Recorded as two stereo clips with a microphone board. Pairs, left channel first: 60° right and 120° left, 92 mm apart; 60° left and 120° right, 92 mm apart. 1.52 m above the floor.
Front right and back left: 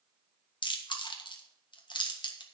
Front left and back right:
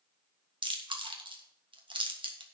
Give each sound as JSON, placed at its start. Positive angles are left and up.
{"t": 0.6, "sound": "chewing", "azimuth_deg": -95, "distance_m": 1.5}